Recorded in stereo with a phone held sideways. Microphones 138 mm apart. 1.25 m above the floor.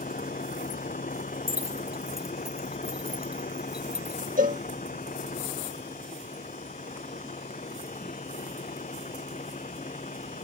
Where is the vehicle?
80° left; by 10.4 s 65° left (ahead or behind).